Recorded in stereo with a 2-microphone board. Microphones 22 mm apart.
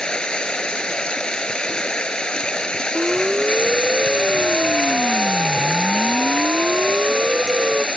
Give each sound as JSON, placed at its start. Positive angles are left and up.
{"t": 0.0, "sound": "running water", "side_deg": 45}
{"t": 3.0, "sound": "a siren", "side_deg": -45}